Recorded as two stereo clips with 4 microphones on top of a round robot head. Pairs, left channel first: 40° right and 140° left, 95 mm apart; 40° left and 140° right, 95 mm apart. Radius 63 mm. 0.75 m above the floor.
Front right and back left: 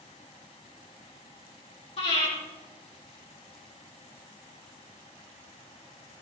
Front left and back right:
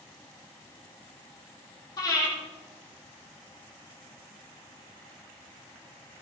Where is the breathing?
15° right, 7.5 m.